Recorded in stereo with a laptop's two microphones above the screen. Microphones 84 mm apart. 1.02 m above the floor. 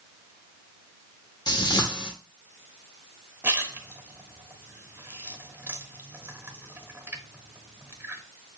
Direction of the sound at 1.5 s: 60° left (ahead or behind).